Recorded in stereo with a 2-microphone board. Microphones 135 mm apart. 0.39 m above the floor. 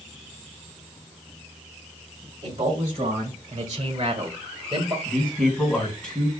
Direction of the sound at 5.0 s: 10° left (ahead or behind).